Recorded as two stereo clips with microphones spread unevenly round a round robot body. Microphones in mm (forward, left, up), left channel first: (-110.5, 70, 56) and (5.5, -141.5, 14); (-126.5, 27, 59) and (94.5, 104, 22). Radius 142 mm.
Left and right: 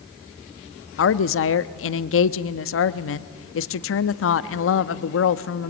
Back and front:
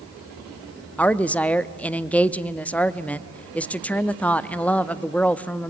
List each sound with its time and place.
1.0 s a woman speaking: 105° left, 0.7 m